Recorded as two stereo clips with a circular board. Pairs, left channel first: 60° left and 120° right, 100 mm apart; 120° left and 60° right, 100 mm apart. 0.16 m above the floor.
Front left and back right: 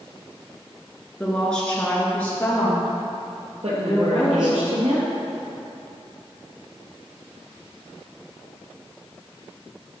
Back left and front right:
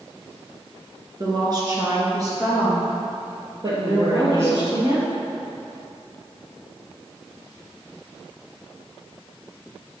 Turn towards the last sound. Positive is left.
turn(degrees=-110)